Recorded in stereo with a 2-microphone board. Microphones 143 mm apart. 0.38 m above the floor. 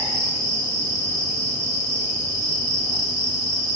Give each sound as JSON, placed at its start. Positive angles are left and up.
{"t": 0.0, "sound": "an insect", "side_deg": -25, "distance_m": 1.5}